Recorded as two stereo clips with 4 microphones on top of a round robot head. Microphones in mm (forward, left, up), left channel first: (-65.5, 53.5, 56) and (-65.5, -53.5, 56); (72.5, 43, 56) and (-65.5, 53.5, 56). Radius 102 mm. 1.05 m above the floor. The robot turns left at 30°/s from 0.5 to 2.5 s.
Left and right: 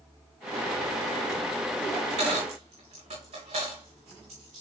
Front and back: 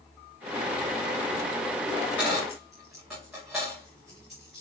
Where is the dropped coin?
80° right, 4 m; by 4.6 s 95° right, 4 m.